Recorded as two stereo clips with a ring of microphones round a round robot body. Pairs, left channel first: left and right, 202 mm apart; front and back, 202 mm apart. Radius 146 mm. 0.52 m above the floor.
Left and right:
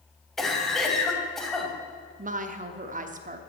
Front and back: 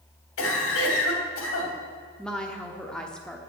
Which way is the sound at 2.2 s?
85° right.